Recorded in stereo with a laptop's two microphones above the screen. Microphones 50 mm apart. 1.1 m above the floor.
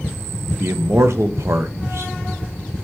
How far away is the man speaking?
About 0.6 m.